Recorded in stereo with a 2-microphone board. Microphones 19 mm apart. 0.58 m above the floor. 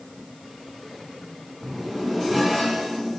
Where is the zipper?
5° left (ahead or behind), 1.7 m.